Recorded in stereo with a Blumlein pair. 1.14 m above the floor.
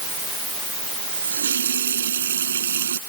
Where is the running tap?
65° right.